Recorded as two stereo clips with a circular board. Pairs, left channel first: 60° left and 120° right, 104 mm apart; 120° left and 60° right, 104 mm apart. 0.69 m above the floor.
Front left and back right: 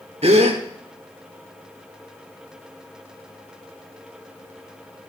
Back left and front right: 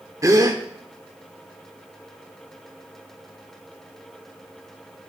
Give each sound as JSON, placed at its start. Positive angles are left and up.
{"t": 0.2, "sound": "a gasp", "azimuth_deg": -115, "distance_m": 1.1}